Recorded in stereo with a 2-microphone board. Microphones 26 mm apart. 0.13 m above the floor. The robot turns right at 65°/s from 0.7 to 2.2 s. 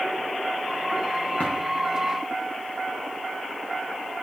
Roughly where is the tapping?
Left.